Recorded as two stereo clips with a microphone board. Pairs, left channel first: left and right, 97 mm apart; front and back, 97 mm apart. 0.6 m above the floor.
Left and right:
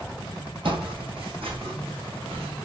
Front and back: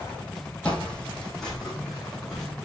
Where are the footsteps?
75° right, 1.3 m; by 2.5 s 85° right, 2.5 m.